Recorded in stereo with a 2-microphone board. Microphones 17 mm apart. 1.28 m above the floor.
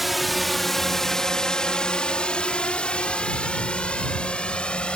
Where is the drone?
5° right (ahead or behind); by 5.0 s 70° left (ahead or behind).